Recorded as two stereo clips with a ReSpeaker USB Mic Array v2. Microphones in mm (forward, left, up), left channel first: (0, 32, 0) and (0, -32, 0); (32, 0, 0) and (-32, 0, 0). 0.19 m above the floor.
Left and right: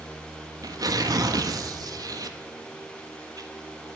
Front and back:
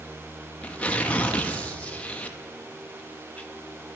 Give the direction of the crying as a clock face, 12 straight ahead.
I don't hear crying.